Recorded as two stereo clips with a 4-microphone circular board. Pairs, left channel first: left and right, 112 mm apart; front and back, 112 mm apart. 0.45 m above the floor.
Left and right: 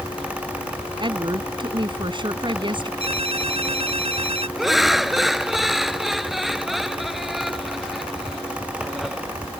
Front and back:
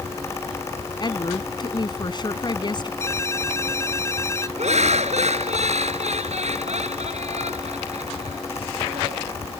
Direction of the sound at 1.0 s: 45° right.